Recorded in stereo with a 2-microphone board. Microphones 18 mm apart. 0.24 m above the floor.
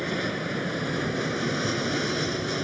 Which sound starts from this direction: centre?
An aircraft, at 0.0 s.